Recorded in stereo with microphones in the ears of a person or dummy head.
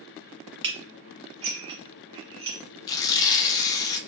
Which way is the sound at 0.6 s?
25° right (ahead or behind).